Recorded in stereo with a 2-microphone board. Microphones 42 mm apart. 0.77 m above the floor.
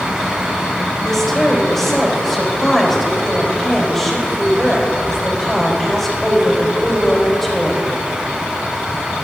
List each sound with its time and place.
1.0 s a woman speaking: 5° left (ahead or behind), 3.5 m